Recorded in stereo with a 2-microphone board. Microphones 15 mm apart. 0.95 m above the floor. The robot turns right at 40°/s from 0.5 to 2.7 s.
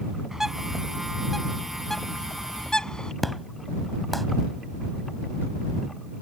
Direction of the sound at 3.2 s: 5° left (ahead or behind).